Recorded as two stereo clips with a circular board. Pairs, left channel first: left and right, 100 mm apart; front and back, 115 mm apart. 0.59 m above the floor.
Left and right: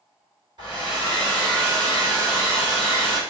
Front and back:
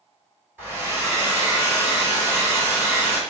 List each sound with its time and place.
0.6 s a hair dryer: 115° right, 1.9 m